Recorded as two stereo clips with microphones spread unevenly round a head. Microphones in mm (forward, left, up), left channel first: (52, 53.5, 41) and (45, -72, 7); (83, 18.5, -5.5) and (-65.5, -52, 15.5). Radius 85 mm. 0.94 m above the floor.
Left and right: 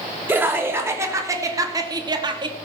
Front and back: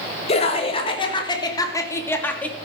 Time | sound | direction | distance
0.3 | laughter | 25° right | 3 m